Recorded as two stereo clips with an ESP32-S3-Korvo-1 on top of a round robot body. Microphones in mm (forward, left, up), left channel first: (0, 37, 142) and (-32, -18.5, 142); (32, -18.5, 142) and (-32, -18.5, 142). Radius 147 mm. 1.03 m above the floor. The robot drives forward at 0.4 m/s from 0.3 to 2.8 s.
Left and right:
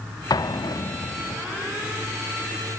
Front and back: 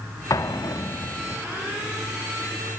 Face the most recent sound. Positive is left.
turn(degrees=75)